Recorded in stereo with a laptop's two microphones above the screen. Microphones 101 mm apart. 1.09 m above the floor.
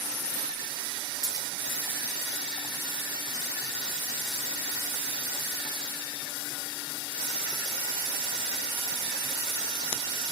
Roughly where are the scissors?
Right.